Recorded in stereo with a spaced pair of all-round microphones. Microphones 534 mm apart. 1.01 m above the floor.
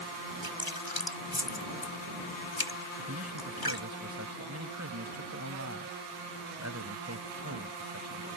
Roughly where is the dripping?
Left.